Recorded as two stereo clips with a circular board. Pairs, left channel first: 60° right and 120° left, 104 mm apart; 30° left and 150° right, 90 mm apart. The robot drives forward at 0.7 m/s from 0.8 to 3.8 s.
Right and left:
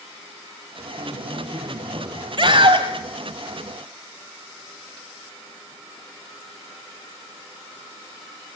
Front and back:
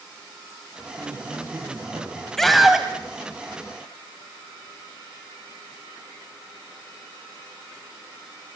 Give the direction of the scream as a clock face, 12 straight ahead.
8 o'clock.